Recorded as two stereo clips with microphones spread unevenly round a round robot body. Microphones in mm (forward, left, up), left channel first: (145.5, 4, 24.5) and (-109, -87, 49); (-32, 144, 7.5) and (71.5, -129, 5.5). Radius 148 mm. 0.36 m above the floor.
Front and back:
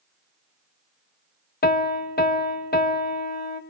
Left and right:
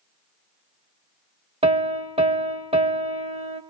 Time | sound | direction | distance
1.6 | a piano | 5° right | 1.9 m